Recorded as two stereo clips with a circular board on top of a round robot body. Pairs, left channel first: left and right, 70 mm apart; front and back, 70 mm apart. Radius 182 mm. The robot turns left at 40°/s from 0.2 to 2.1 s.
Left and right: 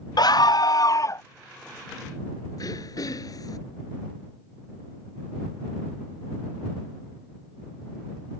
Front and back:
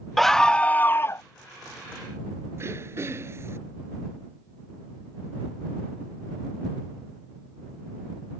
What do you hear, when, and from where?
0.2 s a scream: 90° left; by 1.2 s 45° left
2.6 s throat clearing: 125° left